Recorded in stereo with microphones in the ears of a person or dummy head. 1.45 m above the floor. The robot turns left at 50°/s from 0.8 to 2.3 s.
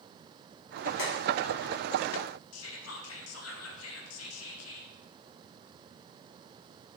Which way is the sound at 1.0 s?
60° left (ahead or behind).